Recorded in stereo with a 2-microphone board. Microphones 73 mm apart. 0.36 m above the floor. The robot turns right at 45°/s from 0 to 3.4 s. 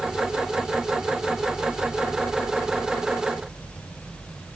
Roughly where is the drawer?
No drawer in this recording.